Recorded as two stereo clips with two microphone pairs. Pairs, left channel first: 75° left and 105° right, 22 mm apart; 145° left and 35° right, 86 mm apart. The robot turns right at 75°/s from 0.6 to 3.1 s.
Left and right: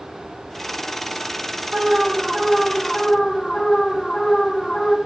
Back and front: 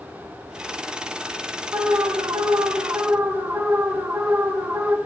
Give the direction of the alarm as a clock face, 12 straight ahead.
3 o'clock.